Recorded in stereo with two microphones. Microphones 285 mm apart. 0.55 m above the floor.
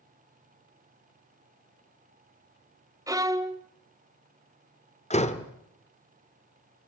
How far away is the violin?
About 0.9 m.